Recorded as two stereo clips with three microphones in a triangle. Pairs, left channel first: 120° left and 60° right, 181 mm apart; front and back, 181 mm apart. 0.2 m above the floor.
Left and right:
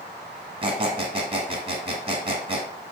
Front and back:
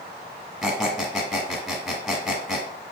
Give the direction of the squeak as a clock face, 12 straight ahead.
3 o'clock.